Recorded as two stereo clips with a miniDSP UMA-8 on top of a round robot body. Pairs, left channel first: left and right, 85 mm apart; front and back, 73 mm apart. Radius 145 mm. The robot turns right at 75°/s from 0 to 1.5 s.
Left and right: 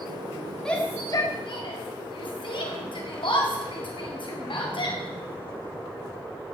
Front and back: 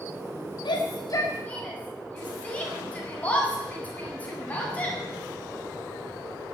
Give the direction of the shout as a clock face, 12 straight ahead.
12 o'clock.